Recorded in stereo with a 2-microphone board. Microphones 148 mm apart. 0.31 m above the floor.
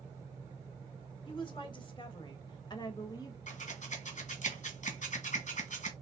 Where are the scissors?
60° left (ahead or behind), 1.6 m.